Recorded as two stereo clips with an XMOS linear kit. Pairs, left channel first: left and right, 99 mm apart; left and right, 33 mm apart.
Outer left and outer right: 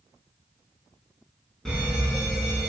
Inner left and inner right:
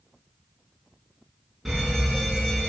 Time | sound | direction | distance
1.6 | a fire alarm | 5° left (ahead or behind) | 5 m